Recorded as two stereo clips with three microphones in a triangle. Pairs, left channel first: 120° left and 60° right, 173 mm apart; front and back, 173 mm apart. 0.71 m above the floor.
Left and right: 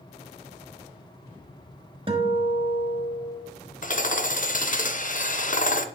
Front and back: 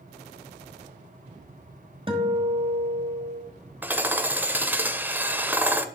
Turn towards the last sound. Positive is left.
turn(degrees=100)